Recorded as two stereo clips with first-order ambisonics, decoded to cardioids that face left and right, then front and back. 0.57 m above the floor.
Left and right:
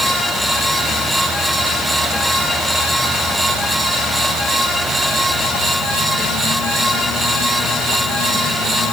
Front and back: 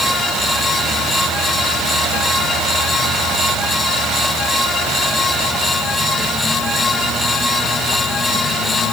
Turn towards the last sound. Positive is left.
No sound to turn to.